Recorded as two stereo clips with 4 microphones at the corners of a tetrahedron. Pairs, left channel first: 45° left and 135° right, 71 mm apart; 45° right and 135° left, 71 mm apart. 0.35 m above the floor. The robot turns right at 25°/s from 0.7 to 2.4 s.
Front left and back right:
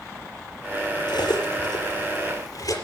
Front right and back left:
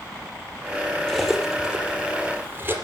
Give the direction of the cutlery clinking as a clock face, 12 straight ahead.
11 o'clock.